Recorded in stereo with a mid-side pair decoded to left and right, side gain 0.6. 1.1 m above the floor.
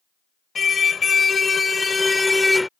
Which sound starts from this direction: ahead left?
A car horn, at 0.6 s.